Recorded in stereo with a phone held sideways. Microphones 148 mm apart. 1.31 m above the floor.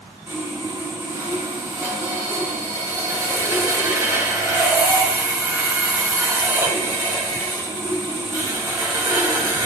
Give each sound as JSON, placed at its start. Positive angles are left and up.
{"t": 0.3, "sound": "sawing", "side_deg": -20, "distance_m": 1.9}